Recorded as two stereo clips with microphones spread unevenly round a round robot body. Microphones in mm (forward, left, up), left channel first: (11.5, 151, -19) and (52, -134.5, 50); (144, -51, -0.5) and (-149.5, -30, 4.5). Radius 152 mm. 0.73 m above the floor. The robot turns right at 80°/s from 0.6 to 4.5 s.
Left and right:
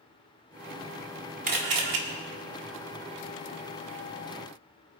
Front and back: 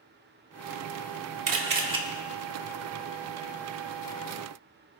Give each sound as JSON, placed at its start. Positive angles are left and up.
{"t": 1.5, "sound": "a camera shutter", "azimuth_deg": -150, "distance_m": 1.8}